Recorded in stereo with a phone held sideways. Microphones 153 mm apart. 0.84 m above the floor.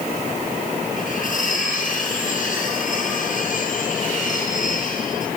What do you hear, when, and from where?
1.0 s cutlery clinking: 60° left (ahead or behind), 9 m